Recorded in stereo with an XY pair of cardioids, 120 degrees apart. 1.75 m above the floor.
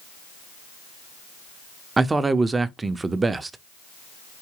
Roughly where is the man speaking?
Ahead.